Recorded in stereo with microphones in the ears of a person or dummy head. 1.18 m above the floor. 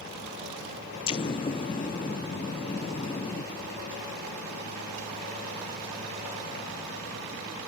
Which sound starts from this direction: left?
An explosion, at 1.1 s.